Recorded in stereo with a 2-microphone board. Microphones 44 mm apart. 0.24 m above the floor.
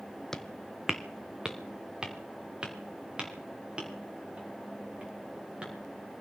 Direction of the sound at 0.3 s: 10° left (ahead or behind).